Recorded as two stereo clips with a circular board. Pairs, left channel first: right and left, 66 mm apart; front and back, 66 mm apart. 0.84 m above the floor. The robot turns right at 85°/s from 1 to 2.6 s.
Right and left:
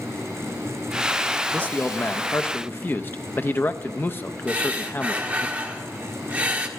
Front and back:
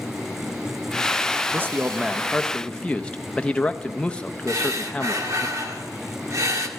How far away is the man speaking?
About 0.6 m.